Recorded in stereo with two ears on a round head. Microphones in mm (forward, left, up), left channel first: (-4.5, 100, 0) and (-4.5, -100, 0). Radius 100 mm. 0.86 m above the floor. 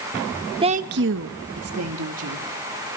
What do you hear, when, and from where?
0.6 s a woman speaking: 20° right (ahead or behind), 0.6 m; by 2.5 s 75° right (ahead or behind), 1.9 m